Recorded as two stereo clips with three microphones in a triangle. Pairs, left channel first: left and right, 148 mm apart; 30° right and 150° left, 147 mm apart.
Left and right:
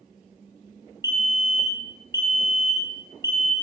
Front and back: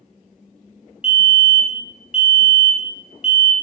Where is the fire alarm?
135° right, 2.5 m.